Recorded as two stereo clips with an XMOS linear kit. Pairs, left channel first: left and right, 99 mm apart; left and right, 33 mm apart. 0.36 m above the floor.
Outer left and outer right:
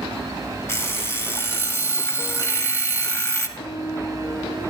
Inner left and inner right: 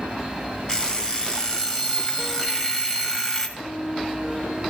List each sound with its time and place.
0.7 s an alarm clock: 25° left (ahead or behind), 0.9 m
3.6 s a piano: 50° left (ahead or behind), 3.5 m